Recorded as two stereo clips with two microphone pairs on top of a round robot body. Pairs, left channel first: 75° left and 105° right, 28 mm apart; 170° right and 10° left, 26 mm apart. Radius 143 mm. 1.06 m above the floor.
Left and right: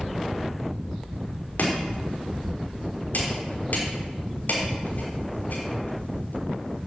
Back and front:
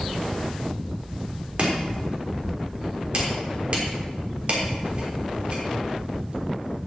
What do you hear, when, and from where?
1.6 s chopping: 55° left, 3.5 m